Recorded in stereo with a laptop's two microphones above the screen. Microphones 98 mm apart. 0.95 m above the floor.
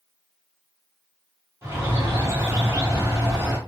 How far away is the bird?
About 1.2 m.